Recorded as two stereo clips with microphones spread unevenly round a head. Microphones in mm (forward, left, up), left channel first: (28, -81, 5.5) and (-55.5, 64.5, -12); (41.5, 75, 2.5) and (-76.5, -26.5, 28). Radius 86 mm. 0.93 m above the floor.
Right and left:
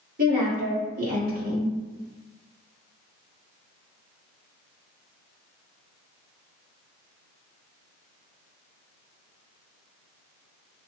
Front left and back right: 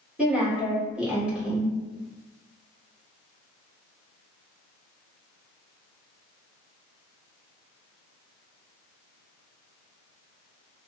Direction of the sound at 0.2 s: 135° left.